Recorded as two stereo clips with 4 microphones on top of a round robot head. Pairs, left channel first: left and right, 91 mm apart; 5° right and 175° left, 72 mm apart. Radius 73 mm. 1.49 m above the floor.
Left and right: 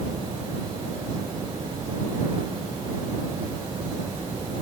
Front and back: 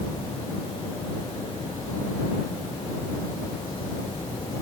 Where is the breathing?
I don't hear breathing.